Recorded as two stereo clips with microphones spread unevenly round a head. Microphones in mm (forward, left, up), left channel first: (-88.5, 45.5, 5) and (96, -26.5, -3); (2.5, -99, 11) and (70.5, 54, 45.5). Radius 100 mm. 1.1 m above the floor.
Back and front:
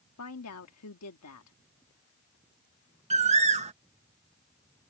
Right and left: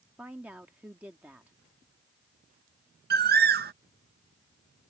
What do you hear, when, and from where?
0.2 s a woman speaking: 150° left
3.1 s a bird: 35° left